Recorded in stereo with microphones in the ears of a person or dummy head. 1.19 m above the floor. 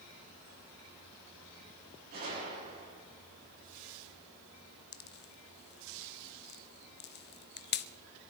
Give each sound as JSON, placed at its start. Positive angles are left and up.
{"t": 2.1, "sound": "a gunshot", "side_deg": -45, "distance_m": 6.5}
{"t": 4.9, "sound": "a pop", "side_deg": 45, "distance_m": 0.6}